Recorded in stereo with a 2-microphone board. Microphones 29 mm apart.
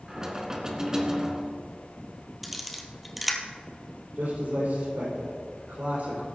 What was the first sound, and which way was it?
Knocking, 20° right (ahead or behind).